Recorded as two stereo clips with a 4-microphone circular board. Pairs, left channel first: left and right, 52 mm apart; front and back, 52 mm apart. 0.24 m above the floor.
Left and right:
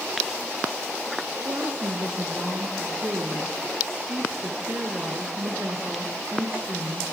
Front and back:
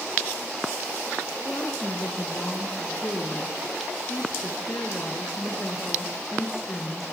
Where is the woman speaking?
45° right, 3.5 m.